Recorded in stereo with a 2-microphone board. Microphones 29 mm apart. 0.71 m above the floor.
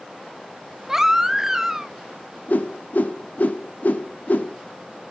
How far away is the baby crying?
About 0.8 m.